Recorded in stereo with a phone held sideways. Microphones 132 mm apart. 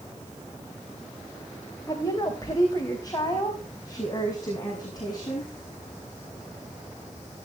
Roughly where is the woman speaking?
Left.